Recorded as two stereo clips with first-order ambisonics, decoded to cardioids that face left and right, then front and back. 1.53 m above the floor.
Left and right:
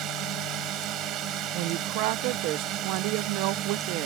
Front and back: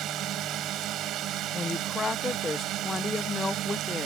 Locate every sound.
0.0 s a drone: 135° right
1.5 s a woman speaking: 80° right